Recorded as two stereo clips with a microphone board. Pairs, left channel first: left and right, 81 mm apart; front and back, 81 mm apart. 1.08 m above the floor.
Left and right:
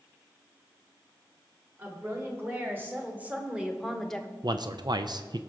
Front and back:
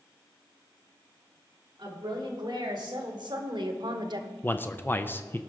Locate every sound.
1.8 s a woman speaking: 150° right, 3 m; by 4.3 s 160° left, 0.9 m
4.4 s a man speaking: 65° right, 0.5 m